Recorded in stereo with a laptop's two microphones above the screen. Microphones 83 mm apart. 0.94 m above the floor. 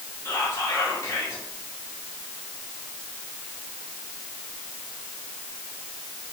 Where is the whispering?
35° left (ahead or behind), 1.6 m.